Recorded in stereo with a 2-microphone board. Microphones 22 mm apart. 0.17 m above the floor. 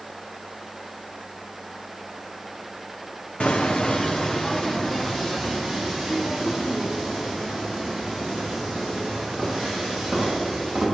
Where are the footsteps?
55° left (ahead or behind), 1.0 m; by 10.8 s 10° right (ahead or behind), 8 m.